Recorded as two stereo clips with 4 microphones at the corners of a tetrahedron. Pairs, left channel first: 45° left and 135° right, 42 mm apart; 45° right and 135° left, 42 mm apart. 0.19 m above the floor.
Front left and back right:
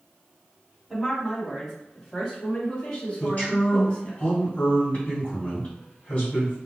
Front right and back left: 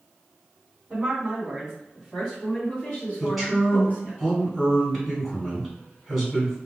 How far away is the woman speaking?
About 1.5 m.